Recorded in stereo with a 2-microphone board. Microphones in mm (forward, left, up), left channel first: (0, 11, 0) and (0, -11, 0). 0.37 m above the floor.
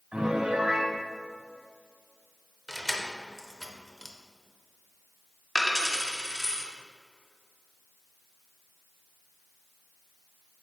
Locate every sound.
0.1 s a piano: 70° right (ahead or behind), 1.4 m
2.7 s keys jangling: 15° left (ahead or behind), 0.7 m
5.5 s a dropped coin: 15° right (ahead or behind), 1.3 m